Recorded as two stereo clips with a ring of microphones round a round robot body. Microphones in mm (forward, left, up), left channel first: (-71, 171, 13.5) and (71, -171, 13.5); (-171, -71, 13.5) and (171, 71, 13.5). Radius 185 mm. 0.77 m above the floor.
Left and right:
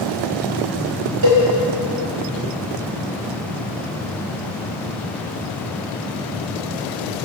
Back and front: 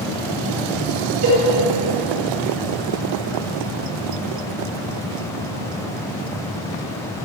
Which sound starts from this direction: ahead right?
A cowbell, at 1.2 s.